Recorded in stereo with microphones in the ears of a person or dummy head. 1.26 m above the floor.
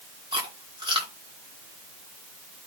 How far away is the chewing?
About 2.0 m.